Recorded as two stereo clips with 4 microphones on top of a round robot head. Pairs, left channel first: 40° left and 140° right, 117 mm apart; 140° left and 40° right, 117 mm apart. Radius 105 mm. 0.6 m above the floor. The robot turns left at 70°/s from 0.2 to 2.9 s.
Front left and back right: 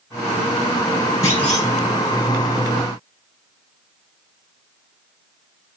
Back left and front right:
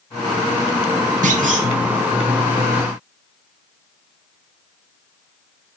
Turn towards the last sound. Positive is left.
turn(degrees=-145)